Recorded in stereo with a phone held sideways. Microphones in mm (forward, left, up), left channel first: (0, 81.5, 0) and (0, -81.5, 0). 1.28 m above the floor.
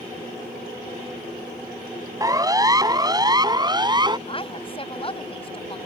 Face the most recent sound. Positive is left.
turn(degrees=35)  # may be behind; listen again after turning